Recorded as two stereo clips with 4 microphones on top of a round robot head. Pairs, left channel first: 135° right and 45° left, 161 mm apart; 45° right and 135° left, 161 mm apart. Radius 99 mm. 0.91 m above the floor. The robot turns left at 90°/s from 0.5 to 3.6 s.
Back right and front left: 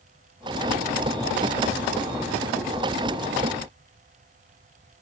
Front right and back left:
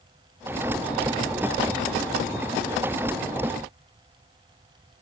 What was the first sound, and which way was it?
Only background noise.